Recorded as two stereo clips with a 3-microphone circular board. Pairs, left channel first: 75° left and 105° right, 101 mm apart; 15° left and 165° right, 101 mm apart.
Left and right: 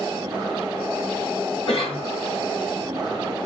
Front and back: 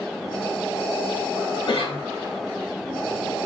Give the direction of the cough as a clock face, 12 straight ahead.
11 o'clock.